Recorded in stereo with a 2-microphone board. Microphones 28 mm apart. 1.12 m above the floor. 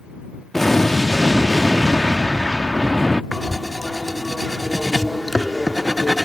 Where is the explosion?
10° left (ahead or behind).